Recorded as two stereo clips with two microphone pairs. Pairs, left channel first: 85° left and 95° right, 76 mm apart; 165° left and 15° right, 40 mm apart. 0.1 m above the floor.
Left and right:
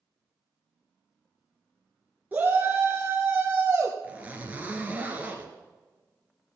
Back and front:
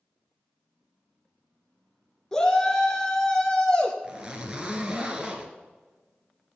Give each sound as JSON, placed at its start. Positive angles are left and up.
{"t": 2.3, "sound": "a shout", "azimuth_deg": -130, "distance_m": 1.2}
{"t": 4.0, "sound": "a zipper", "azimuth_deg": -50, "distance_m": 1.6}